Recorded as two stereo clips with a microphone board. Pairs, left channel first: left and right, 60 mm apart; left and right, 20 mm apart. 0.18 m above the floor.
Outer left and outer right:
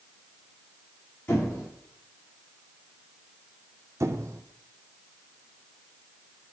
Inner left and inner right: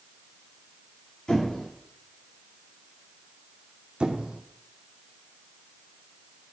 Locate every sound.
1.3 s a squeak: 40° left (ahead or behind), 5.5 m
4.0 s a squeak: 55° right (ahead or behind), 0.8 m